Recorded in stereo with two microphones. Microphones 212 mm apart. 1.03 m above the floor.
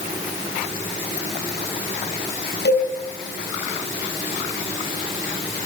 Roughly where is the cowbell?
Left.